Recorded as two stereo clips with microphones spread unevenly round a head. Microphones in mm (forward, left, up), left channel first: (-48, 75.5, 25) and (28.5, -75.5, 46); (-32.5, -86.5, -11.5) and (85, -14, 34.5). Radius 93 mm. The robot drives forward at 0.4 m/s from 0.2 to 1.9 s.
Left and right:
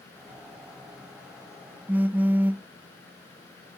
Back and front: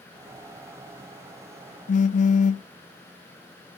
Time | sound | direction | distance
1.9 | a phone buzzing | 125° right | 0.5 m